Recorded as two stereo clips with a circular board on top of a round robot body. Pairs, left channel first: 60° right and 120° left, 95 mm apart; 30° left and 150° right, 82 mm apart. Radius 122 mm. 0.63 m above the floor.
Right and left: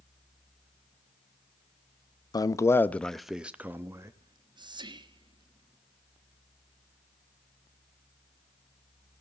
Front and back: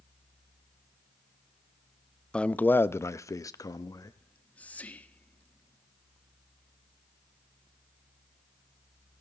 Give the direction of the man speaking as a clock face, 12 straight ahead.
1 o'clock.